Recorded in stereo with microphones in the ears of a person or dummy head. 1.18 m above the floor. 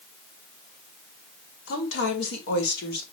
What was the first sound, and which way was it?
A woman speaking, 80° left.